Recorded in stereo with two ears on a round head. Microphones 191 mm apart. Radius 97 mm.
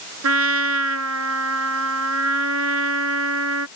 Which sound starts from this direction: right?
A trumpet, at 0.2 s.